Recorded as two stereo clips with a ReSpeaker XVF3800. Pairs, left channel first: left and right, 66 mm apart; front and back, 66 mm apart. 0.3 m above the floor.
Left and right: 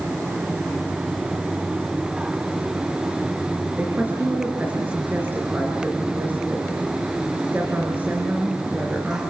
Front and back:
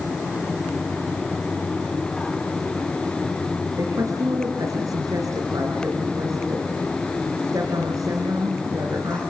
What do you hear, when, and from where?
3.8 s a woman speaking: 150° right, 4 m